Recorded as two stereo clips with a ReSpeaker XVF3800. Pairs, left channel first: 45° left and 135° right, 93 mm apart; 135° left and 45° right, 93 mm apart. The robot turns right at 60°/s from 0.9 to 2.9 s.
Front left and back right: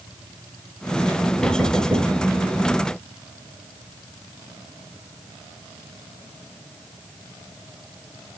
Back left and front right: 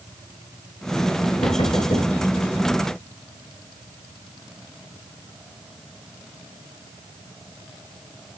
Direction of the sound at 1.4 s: 125° left.